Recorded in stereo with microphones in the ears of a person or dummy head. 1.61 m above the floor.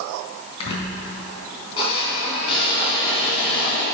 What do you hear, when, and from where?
0.6 s a squeak: 35° left (ahead or behind), 3.5 m